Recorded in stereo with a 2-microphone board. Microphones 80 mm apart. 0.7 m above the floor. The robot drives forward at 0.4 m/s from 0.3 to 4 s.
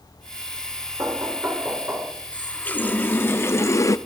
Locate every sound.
1.0 s knocking: 35° right (ahead or behind), 1.8 m; by 2.1 s 30° right (ahead or behind), 2 m
2.3 s a running tap: 20° left (ahead or behind), 1.0 m; by 4.0 s 40° left (ahead or behind), 0.5 m